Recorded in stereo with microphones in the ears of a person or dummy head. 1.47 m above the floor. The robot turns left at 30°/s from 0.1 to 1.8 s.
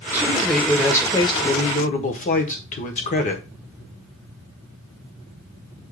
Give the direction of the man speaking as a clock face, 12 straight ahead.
6 o'clock.